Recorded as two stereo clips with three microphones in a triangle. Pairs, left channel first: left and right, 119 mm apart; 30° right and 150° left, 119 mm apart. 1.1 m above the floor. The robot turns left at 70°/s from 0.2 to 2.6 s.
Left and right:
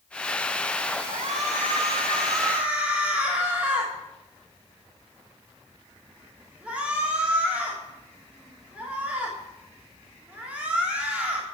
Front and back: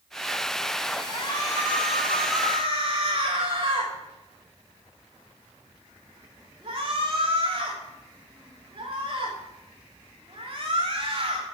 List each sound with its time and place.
1.1 s a shout: 65° right, 3 m; by 11.4 s 170° right, 3 m